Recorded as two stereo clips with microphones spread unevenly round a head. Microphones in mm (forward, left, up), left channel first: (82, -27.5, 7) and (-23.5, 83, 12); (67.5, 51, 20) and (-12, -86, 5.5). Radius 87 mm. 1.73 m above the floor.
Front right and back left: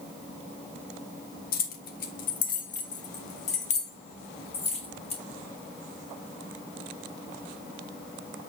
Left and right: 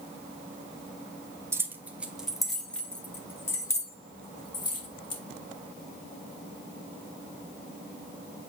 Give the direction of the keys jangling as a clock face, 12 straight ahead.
2 o'clock.